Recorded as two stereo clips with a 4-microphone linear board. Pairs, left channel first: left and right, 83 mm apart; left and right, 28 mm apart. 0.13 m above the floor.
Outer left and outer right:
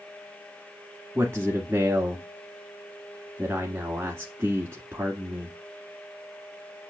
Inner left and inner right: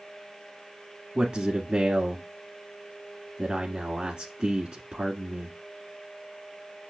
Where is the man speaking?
30° right (ahead or behind), 1.4 m.